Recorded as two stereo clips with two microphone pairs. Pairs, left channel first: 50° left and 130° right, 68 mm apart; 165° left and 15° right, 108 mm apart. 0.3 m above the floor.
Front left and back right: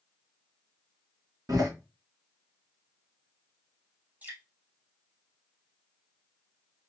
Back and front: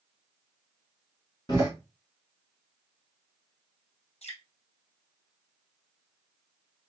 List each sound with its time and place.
1.5 s a door slam: 150° right, 2.5 m
4.2 s dripping: 160° left, 1.8 m